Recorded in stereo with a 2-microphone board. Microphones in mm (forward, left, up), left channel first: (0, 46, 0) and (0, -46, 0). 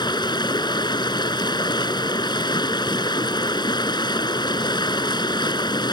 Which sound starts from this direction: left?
Running water, at 0.0 s.